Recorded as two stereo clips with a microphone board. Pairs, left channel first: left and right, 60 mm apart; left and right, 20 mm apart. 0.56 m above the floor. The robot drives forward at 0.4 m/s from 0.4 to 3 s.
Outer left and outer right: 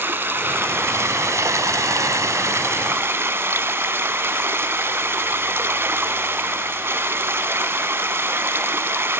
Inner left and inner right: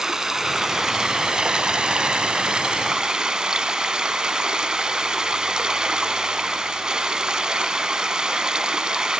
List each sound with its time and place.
0.0 s running water: 35° right (ahead or behind), 0.8 m; by 9.2 s 40° right (ahead or behind), 0.7 m